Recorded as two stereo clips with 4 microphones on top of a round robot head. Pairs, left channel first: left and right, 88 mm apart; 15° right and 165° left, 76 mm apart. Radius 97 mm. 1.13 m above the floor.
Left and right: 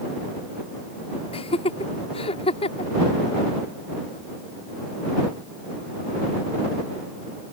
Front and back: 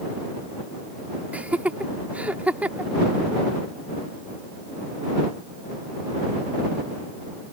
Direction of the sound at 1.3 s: 95° left.